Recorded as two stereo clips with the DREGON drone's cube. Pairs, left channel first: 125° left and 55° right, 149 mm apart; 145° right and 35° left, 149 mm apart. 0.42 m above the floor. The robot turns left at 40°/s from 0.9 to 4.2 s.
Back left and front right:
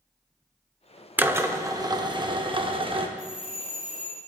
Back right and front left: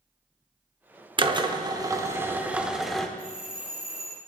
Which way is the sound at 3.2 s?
170° right.